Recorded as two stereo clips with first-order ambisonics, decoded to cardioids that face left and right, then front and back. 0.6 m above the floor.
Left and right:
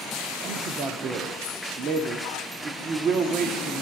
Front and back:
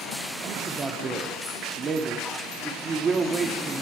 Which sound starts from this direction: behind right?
A man speaking, at 0.4 s.